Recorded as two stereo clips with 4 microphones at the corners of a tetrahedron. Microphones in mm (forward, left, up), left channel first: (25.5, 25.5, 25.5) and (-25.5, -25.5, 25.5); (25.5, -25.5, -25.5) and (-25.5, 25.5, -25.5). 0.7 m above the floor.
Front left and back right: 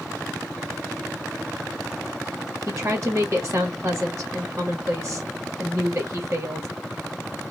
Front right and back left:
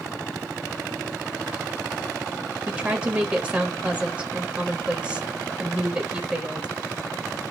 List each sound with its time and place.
2.7 s a woman speaking: 155° right, 1.0 m